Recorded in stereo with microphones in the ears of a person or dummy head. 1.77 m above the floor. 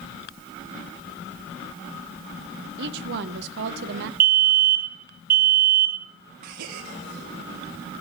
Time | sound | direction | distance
2.8 | a woman speaking | 65° right (ahead or behind) | 1.0 m
4.2 | a fire alarm | 45° right (ahead or behind) | 1.1 m
6.4 | a gasp | 55° right (ahead or behind) | 1.0 m